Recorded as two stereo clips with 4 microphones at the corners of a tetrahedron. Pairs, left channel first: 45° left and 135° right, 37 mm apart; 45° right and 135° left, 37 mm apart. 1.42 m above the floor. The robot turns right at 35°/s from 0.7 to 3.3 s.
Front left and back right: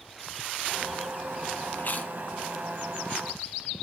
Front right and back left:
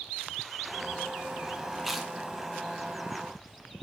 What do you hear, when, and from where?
1.8 s chewing: 45° left, 0.8 m; by 2.1 s 60° left, 0.8 m